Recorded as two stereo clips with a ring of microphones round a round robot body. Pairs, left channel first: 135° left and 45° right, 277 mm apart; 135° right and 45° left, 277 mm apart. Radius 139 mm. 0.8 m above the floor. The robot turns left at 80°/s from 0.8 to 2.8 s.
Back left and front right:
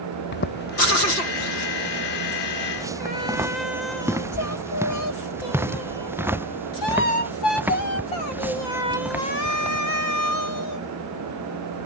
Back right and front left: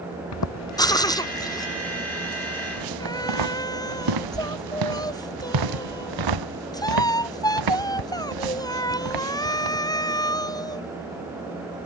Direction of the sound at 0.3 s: 170° right.